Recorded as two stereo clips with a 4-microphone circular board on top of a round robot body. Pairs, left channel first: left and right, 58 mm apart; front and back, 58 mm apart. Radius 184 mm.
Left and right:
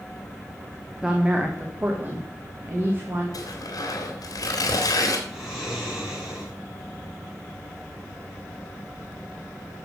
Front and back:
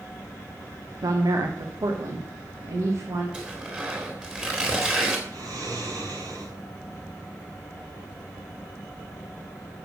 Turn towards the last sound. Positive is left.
turn(degrees=180)